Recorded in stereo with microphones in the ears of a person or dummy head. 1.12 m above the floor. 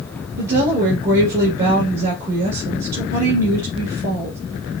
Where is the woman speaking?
60° right (ahead or behind), 1.8 m.